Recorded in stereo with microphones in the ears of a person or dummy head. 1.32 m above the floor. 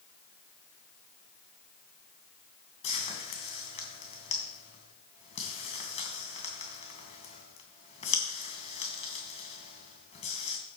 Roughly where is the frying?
Left.